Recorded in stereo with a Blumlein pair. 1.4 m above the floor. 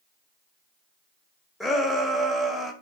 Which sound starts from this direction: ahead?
A shout, at 1.6 s.